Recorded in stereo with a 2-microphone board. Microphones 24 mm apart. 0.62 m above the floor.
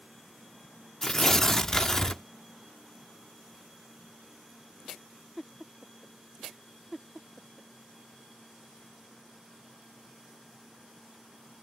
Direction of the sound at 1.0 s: 20° left (ahead or behind).